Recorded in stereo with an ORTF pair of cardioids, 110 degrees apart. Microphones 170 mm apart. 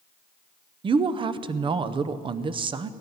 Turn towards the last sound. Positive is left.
turn(degrees=-30)